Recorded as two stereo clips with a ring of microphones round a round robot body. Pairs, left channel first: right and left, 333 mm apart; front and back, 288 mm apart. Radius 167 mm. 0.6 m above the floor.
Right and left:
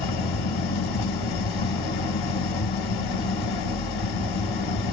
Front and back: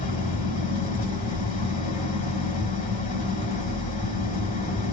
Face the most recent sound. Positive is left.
turn(degrees=-70)